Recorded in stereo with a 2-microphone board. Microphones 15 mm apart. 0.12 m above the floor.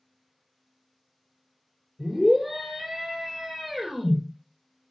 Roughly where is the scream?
Centre.